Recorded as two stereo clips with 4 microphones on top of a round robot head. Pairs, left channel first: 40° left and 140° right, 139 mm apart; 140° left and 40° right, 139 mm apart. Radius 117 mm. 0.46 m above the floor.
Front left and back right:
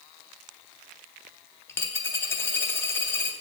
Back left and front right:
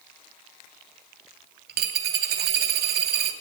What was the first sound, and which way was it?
A dropped coin, 35° right.